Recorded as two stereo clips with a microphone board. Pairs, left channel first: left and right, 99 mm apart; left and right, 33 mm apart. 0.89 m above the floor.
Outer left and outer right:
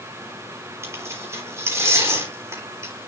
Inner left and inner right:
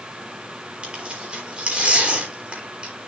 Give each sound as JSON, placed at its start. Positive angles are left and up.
{"t": 0.8, "sound": "tearing paper", "side_deg": -30, "distance_m": 4.0}